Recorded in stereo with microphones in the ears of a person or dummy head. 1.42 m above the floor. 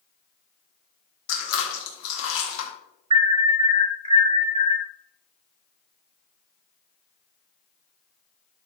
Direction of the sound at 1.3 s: 70° left (ahead or behind).